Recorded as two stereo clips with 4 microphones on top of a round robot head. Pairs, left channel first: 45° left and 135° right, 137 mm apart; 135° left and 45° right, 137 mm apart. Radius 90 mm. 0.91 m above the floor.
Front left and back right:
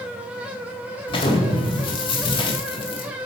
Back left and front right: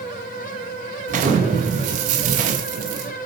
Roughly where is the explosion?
Ahead.